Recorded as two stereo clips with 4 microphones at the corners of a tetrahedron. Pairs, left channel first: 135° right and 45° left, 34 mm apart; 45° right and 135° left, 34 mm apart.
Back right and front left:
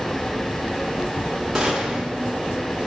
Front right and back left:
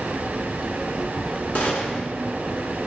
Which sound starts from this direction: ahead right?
A gunshot, at 1.6 s.